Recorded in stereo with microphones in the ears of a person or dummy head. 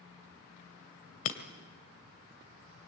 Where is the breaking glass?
50° left (ahead or behind), 2 m.